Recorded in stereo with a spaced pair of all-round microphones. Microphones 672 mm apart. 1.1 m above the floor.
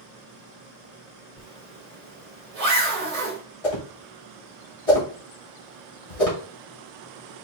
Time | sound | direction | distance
1.4 | a zipper | 60° right (ahead or behind) | 1.2 m
3.6 | a whoosh | 55° left (ahead or behind) | 2 m